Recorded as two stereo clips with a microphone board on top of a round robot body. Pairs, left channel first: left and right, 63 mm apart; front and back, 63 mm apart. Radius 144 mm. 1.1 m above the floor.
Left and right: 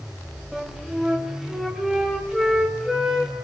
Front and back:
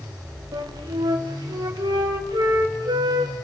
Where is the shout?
I don't hear a shout.